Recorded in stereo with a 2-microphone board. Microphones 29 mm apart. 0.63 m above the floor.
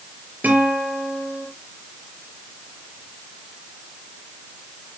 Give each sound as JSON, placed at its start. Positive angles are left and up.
{"t": 0.4, "sound": "a guitar", "side_deg": -85, "distance_m": 5.0}